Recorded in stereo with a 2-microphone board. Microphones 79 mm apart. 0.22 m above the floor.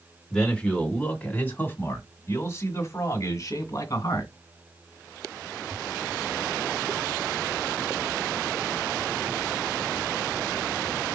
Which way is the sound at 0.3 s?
10° left (ahead or behind).